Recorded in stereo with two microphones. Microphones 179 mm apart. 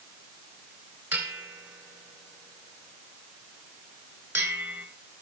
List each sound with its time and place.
1.1 s a bell: 15° right (ahead or behind), 2.5 m